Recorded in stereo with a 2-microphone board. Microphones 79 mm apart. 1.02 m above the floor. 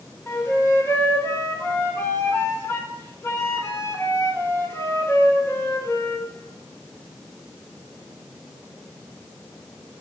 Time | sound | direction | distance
0.3 | a flute | 35° left (ahead or behind) | 2 m